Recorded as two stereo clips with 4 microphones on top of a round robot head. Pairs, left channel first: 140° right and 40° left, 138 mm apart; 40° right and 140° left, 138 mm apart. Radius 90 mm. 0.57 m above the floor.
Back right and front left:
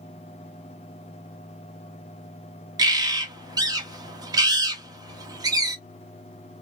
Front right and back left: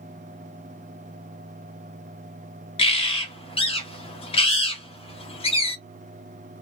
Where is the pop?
No pop in this recording.